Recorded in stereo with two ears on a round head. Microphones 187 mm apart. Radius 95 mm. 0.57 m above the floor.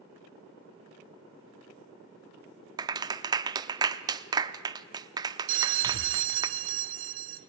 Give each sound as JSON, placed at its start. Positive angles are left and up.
{"t": 2.8, "sound": "a clap", "side_deg": -20, "distance_m": 0.8}
{"t": 5.5, "sound": "a bell", "side_deg": -60, "distance_m": 1.0}